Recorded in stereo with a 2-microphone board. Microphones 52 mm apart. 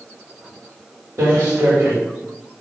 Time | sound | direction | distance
1.2 | footsteps | 70° right (ahead or behind) | 1.9 m